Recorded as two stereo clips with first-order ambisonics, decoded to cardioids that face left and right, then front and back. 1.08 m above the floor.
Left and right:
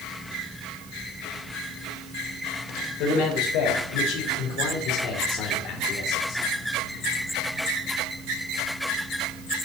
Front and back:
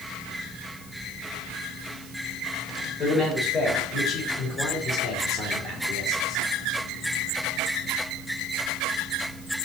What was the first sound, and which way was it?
A man speaking, 65° left.